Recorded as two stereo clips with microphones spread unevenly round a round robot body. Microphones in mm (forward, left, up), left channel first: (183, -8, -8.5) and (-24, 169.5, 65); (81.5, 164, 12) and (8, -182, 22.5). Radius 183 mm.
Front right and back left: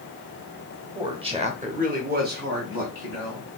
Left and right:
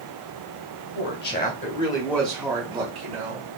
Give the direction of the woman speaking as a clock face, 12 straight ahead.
10 o'clock.